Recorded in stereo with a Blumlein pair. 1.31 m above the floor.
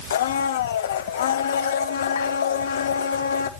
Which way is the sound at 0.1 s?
60° left.